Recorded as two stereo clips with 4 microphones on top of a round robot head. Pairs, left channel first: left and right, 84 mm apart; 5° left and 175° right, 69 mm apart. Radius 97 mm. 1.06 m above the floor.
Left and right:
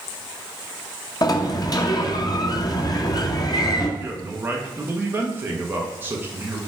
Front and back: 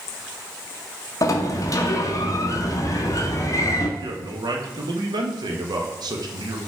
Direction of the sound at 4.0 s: 160° right.